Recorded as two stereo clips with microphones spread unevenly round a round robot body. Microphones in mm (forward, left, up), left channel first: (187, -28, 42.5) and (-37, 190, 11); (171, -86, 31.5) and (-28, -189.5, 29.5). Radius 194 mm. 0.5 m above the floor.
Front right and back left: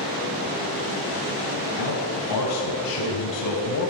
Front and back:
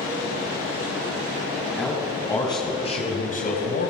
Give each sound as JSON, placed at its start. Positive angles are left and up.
{"t": 1.8, "sound": "a man speaking", "azimuth_deg": -55, "distance_m": 5.0}